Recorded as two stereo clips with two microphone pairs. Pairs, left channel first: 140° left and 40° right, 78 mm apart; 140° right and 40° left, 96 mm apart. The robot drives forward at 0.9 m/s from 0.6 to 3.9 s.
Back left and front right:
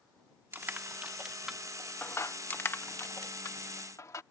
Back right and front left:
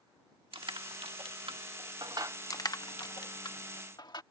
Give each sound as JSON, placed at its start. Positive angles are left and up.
{"t": 0.5, "sound": "crushing", "azimuth_deg": 20}
{"t": 2.5, "sound": "crushing", "azimuth_deg": -165}